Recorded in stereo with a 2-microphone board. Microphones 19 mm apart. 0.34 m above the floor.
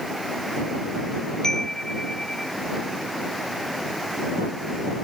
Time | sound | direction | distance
1.4 | a chime | 35° left (ahead or behind) | ?